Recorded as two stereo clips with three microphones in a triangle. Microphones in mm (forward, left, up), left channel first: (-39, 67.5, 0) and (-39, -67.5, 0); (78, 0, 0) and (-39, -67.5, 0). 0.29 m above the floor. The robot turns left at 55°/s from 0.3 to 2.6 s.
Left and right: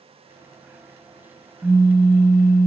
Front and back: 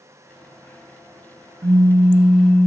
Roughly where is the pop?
Behind.